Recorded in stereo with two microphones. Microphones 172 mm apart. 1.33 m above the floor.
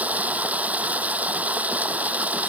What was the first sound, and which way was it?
Running water, 10° right (ahead or behind).